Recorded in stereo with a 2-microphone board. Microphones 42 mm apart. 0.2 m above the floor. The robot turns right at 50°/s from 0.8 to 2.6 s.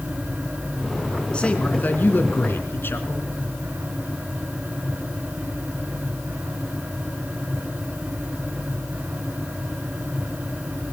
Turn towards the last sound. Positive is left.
turn(degrees=90)